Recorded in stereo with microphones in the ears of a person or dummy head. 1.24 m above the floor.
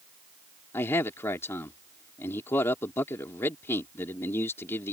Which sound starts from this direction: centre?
A man speaking, at 0.7 s.